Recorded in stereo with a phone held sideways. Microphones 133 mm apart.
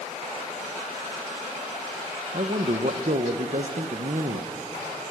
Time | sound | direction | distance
2.3 | a man speaking | 65° right (ahead or behind) | 1.0 m